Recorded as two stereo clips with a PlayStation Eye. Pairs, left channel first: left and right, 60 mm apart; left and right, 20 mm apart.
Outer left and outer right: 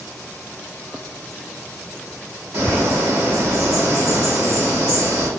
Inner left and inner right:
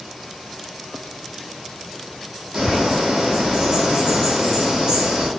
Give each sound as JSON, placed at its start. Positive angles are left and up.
{"t": 2.5, "sound": "a bird", "side_deg": -55, "distance_m": 1.7}